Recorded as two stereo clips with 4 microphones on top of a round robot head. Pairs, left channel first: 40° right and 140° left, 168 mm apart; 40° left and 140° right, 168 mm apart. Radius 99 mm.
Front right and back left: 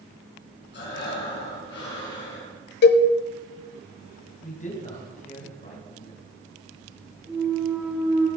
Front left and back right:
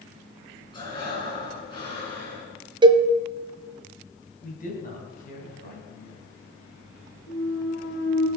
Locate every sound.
0.7 s breathing: 20° right, 5.5 m
2.8 s a cowbell: 75° right, 0.8 m
4.4 s a man speaking: 5° left, 4 m
7.3 s a clunk: 55° left, 2.5 m